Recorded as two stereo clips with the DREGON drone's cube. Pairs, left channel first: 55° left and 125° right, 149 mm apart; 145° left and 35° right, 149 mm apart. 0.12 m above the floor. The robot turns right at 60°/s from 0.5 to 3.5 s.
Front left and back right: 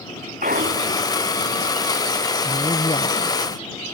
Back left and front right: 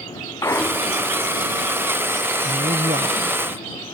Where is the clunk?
145° right; by 1.1 s 110° right.